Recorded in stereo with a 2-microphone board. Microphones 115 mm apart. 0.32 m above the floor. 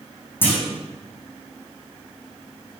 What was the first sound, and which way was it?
A clunk, 15° left (ahead or behind).